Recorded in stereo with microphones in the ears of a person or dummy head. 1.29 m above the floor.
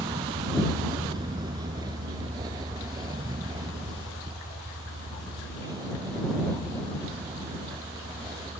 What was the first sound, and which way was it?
A vehicle, 25° right (ahead or behind).